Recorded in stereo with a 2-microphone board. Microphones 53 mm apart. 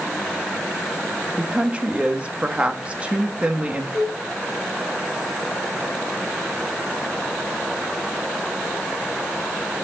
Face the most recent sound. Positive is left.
turn(degrees=25)  # may be behind; listen again after turning